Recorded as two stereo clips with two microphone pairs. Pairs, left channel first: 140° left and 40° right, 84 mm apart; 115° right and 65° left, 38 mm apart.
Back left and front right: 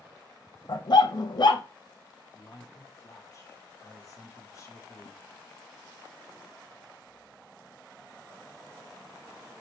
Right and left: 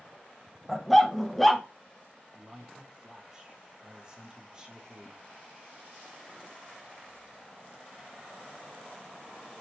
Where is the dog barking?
160° left, 0.6 m.